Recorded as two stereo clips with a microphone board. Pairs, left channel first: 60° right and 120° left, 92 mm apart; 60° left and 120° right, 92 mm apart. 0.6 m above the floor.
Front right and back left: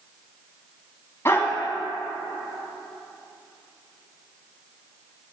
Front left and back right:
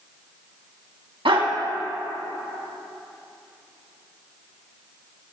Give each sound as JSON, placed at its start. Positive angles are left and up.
{"t": 1.2, "sound": "a dog barking", "azimuth_deg": -120, "distance_m": 1.3}